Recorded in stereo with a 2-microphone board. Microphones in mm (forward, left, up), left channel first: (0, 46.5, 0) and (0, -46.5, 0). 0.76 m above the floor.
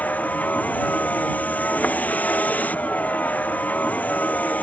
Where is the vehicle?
15° left (ahead or behind).